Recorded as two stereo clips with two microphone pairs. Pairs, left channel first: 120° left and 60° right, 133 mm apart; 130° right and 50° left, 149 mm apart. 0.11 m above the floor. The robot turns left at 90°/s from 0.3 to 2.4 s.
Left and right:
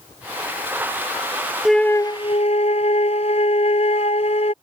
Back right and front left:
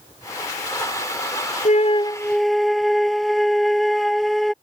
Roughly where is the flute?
Behind right.